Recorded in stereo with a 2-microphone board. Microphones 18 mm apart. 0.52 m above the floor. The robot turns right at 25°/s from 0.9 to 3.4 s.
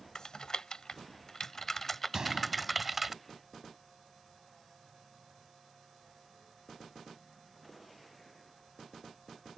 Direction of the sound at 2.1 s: 30° right (ahead or behind).